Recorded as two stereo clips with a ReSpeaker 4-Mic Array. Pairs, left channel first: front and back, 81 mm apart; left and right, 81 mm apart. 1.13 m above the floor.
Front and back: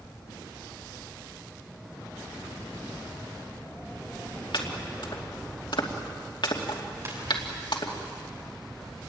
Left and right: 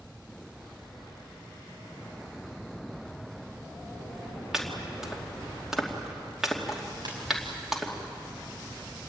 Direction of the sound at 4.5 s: 5° right.